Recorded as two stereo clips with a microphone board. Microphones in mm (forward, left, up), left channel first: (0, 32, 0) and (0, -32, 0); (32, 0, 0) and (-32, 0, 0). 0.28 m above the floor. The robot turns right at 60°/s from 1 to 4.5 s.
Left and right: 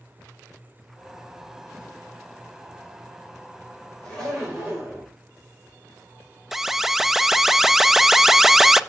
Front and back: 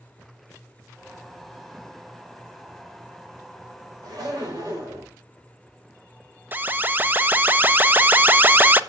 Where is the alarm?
170° right, 0.6 m.